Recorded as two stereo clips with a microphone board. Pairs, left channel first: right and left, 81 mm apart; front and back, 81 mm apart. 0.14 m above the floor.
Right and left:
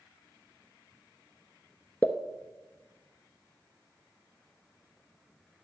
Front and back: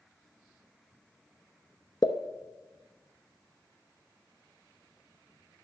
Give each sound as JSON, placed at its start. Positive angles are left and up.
{"t": 2.0, "sound": "a pop", "azimuth_deg": -25, "distance_m": 0.9}